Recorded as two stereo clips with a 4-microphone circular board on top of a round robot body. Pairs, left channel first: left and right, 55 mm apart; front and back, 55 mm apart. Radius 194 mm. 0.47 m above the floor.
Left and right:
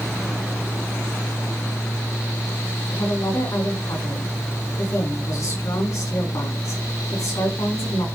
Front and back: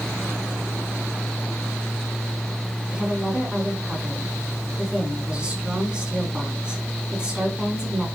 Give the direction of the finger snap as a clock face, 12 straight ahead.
No finger snap in this recording.